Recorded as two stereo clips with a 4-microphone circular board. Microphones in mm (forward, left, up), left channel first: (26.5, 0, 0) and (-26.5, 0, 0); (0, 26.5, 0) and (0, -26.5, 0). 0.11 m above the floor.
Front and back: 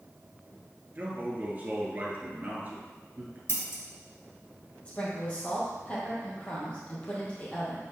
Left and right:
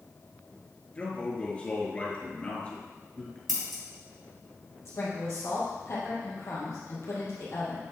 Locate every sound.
0.9 s a man speaking: 140° left, 1.7 m
3.5 s scissors: straight ahead, 2.5 m
4.8 s a woman speaking: 65° left, 2.5 m